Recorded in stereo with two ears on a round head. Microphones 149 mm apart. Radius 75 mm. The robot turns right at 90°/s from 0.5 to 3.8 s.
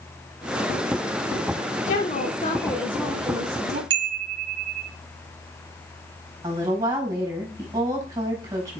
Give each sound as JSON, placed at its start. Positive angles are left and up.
{"t": 1.9, "sound": "a woman speaking", "azimuth_deg": 75, "distance_m": 1.7}
{"t": 3.9, "sound": "a chime", "side_deg": -70, "distance_m": 1.0}
{"t": 6.4, "sound": "a woman speaking", "side_deg": -20, "distance_m": 4.0}